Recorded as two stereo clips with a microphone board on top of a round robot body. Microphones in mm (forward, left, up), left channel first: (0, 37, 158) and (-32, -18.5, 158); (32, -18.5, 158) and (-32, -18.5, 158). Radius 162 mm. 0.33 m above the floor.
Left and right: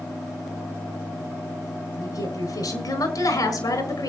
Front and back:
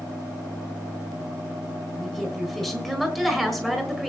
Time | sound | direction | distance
2.0 | a woman speaking | 85° left | 5.5 m